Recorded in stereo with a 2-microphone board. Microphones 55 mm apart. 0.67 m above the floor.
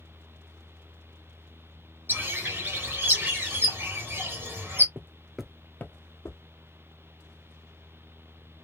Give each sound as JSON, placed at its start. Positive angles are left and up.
{"t": 2.1, "sound": "a bird", "side_deg": -40, "distance_m": 1.6}
{"t": 5.0, "sound": "footsteps", "side_deg": -40, "distance_m": 0.8}